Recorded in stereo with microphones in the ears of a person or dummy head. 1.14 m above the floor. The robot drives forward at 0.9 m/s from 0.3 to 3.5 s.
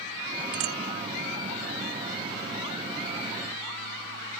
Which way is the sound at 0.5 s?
75° right (ahead or behind).